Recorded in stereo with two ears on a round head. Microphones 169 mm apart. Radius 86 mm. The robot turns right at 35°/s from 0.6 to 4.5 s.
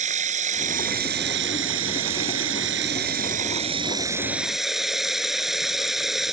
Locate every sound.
0.0 s running water: 140° right; by 6.3 s straight ahead